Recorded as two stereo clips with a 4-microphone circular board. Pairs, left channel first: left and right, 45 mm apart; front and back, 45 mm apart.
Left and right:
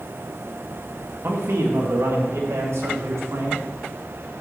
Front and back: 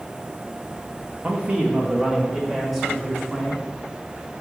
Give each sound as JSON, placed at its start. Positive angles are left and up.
{"t": 1.2, "sound": "a man speaking", "azimuth_deg": -120, "distance_m": 2.0}